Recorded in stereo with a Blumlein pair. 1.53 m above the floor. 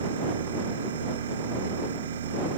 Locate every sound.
0.0 s a machine running: 65° right